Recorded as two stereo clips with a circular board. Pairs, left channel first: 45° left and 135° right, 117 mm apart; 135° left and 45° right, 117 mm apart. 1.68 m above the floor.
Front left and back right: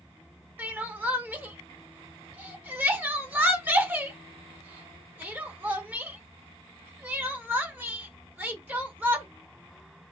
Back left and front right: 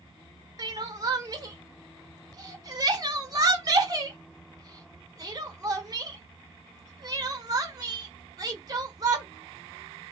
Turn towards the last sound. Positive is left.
turn(degrees=-70)